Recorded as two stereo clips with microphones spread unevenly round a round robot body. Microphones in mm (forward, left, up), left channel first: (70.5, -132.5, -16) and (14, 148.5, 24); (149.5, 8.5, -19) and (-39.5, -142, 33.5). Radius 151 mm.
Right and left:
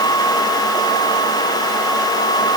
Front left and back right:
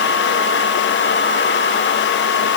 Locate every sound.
Only background noise.